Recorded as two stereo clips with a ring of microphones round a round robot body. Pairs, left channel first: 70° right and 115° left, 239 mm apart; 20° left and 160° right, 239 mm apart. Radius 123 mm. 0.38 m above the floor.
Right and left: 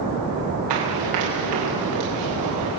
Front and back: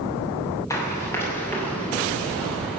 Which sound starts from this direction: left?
Running footsteps, at 0.7 s.